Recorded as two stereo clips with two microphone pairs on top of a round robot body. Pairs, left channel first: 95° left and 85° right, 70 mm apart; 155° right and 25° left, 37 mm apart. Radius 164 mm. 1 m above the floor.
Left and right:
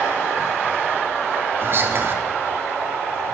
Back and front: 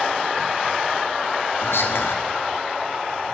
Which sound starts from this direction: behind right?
Whispering, at 1.6 s.